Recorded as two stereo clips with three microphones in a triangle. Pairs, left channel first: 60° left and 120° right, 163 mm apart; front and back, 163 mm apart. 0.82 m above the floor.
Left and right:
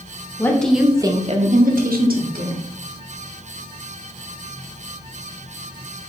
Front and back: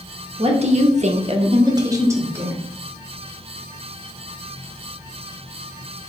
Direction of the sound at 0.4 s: 130° left.